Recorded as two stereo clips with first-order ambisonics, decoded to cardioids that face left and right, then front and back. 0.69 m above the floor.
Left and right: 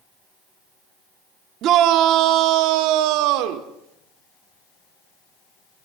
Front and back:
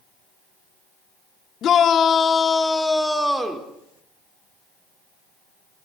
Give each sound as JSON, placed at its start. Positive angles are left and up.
{"t": 1.6, "sound": "a shout", "azimuth_deg": -50, "distance_m": 1.6}